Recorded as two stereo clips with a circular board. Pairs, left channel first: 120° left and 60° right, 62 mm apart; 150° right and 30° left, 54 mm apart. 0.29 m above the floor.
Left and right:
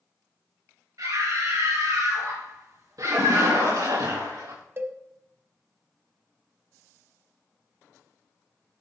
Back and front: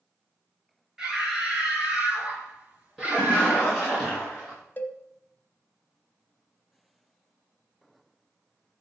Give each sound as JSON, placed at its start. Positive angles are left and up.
{"t": 1.0, "sound": "a scream", "azimuth_deg": -50, "distance_m": 5.5}
{"t": 3.0, "sound": "a splash", "azimuth_deg": -60, "distance_m": 6.5}
{"t": 4.8, "sound": "a cowbell", "azimuth_deg": -100, "distance_m": 0.9}